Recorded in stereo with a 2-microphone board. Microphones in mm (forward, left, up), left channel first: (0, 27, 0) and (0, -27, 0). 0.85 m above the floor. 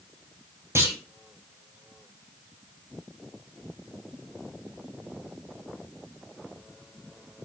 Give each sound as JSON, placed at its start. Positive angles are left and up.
{"t": 0.8, "sound": "a clunk", "side_deg": -50, "distance_m": 3.5}